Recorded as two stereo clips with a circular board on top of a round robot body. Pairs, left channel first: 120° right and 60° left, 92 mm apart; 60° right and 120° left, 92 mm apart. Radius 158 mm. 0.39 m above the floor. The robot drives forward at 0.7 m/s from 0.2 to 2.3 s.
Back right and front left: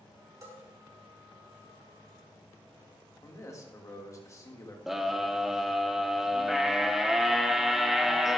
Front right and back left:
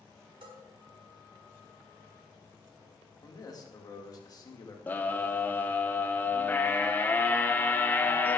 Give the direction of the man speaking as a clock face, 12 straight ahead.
3 o'clock.